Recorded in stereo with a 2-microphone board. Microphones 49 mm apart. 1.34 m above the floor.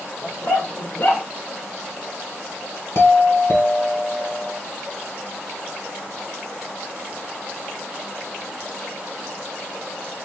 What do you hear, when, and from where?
0.2 s a dog barking: 50° left (ahead or behind), 1.3 m; by 1.2 s 40° left (ahead or behind), 1.3 m
3.0 s a doorbell: 60° left (ahead or behind), 1.3 m